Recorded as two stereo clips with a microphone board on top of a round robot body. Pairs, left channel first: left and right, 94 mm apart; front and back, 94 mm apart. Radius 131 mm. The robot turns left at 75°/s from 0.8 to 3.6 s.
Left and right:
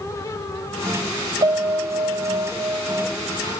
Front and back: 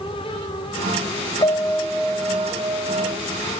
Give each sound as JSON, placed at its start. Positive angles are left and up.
{"t": 1.4, "sound": "a piano", "azimuth_deg": -45, "distance_m": 1.3}